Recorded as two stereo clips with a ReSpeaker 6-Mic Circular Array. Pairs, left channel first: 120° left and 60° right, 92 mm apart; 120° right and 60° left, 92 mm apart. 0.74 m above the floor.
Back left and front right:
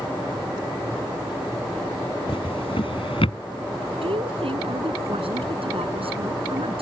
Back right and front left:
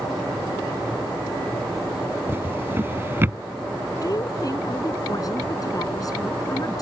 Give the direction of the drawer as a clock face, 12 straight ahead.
8 o'clock.